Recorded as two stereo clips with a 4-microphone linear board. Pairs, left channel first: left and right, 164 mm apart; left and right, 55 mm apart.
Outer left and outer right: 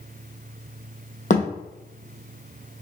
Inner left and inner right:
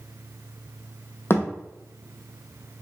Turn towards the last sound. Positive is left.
turn(degrees=50)  # may be behind; listen again after turning